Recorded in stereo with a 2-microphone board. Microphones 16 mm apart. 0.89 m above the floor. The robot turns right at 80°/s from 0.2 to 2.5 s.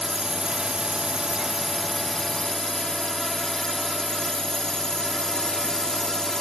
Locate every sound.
0.0 s a drone: 130° right; by 6.4 s 55° left